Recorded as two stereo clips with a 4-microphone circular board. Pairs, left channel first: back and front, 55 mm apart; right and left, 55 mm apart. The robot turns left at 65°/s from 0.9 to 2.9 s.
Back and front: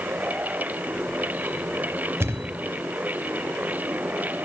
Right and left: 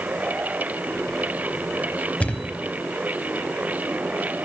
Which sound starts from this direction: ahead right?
A thud, at 2.2 s.